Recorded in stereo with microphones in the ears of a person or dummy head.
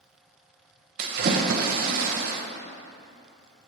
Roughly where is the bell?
No bell in this recording.